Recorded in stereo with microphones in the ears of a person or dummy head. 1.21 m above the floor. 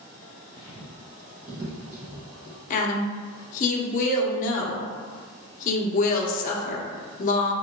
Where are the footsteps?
35° left (ahead or behind), 1.5 m; by 2.6 s 35° right (ahead or behind), 2.5 m.